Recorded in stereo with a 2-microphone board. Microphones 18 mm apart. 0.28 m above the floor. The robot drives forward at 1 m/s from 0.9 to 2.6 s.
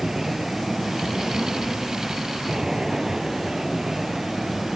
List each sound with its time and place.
0.0 s an aircraft: 25° right (ahead or behind); by 4.8 s 20° right (ahead or behind)